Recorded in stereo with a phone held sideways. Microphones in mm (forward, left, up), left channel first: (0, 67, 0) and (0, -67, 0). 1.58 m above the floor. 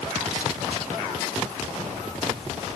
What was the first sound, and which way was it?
Only background noise.